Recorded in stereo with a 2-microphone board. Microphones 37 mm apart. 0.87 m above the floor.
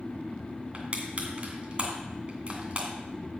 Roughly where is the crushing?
Right.